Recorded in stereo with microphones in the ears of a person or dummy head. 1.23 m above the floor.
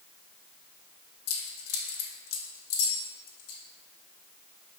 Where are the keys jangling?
85° left, 2 m.